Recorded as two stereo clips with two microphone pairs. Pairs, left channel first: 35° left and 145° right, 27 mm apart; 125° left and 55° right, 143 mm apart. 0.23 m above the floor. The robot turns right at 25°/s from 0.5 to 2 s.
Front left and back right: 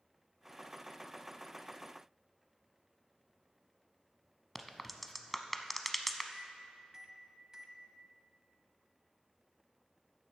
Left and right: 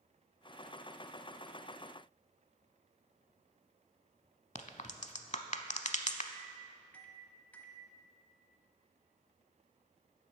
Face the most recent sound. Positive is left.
turn(degrees=-175)